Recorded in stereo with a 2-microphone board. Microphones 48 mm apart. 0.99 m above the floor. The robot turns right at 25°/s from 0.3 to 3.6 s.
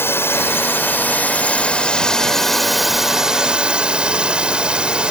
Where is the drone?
120° left; by 5.1 s 155° right.